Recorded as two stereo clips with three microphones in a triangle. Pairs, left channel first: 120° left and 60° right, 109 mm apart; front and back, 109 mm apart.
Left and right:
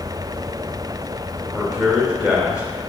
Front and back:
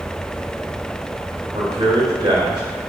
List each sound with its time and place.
1.5 s a man speaking: 140° right, 2.5 m